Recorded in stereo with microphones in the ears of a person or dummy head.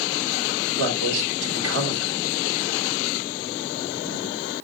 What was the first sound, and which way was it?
A man speaking, 75° right (ahead or behind).